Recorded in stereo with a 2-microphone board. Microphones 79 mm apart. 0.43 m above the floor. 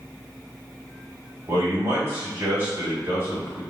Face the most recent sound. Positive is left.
turn(degrees=-35)  # may be behind; listen again after turning